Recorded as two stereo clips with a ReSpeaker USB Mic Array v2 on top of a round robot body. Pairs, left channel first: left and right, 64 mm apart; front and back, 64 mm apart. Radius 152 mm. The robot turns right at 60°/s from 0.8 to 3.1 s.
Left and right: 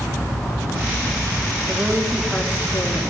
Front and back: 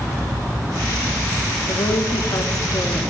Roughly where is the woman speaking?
Ahead right.